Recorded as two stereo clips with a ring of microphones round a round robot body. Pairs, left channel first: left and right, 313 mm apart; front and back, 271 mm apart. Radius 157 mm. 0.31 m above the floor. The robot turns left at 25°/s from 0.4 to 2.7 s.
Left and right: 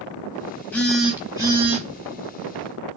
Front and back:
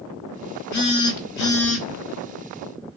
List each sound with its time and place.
0.7 s a phone buzzing: 5° left, 0.8 m; by 1.9 s 25° right, 0.8 m